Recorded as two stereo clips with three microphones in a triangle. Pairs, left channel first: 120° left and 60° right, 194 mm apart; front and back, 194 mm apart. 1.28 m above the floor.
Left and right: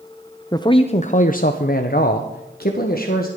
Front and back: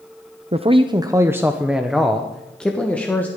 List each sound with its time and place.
0.5 s a man speaking: 175° left, 0.5 m; by 3.3 s 80° left, 1.5 m